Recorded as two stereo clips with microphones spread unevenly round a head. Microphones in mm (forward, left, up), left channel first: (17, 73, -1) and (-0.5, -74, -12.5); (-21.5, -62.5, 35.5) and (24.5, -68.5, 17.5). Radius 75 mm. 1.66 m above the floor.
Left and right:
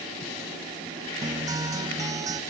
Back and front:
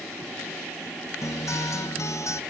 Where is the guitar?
165° right, 0.6 m.